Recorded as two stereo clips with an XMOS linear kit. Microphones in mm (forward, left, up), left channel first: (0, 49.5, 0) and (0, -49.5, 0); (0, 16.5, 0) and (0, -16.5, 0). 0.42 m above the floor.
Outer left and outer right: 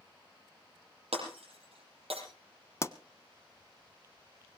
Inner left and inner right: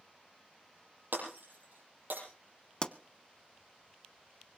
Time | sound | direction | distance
1.1 | breaking glass | 85° right | 6.5 m
2.8 | a pop | 30° left (ahead or behind) | 0.6 m